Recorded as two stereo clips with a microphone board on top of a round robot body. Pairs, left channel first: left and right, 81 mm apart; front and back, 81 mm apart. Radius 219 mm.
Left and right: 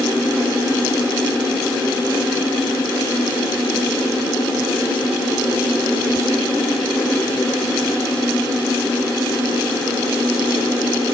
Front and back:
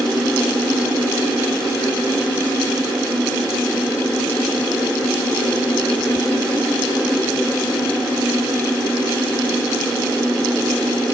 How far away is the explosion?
No explosion in this recording.